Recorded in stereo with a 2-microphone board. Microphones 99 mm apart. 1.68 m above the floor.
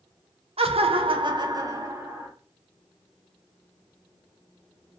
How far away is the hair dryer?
I don't hear a hair dryer.